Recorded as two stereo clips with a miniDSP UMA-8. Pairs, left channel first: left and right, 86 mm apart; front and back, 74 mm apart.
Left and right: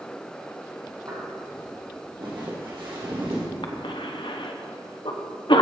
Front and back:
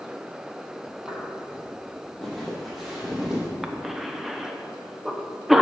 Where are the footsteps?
65° right, 3 m; by 3.5 s 100° right, 3.5 m.